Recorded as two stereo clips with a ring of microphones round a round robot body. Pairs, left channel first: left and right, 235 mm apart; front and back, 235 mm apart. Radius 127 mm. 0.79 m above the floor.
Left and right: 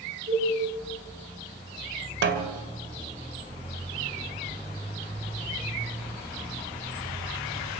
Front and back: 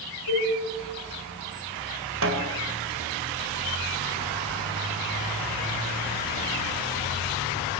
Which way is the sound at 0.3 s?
20° right.